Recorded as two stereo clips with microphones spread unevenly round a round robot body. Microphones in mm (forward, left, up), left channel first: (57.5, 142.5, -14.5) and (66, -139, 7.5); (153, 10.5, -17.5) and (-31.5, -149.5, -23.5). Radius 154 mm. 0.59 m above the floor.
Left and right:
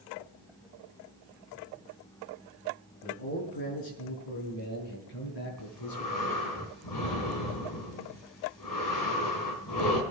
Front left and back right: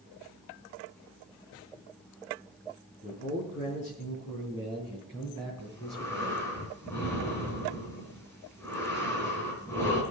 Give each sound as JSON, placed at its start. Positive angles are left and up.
{"t": 3.0, "sound": "a man speaking", "azimuth_deg": 105, "distance_m": 5.5}
{"t": 5.6, "sound": "breathing", "azimuth_deg": 125, "distance_m": 4.0}